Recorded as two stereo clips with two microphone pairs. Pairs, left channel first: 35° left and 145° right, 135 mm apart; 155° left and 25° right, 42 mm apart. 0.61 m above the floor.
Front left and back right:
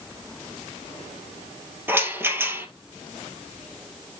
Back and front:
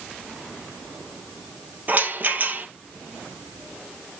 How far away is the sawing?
I don't hear sawing.